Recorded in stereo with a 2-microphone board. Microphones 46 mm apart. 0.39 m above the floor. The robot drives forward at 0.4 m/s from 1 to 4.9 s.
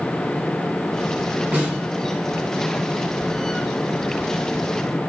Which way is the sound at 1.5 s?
35° right (ahead or behind).